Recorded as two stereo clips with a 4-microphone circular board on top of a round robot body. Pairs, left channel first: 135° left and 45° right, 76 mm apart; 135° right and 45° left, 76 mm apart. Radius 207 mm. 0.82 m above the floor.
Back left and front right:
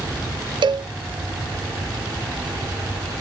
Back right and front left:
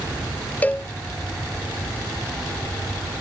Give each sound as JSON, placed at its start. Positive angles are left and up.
{"t": 0.6, "sound": "a cowbell", "azimuth_deg": -65}